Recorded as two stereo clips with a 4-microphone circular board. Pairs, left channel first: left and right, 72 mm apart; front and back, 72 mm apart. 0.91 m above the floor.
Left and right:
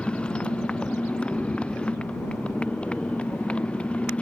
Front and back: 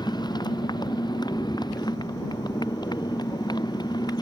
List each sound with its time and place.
0.0 s a motorcycle: 15° left